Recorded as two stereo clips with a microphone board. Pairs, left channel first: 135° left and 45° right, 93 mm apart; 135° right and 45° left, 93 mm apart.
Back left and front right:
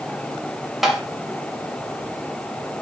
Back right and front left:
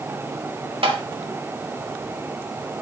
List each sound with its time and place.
0.8 s tapping: 45° left, 1.9 m